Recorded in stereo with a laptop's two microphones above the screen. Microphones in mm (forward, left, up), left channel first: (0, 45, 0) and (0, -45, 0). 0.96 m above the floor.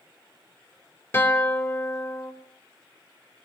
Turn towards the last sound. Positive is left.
turn(degrees=30)  # may be behind; listen again after turning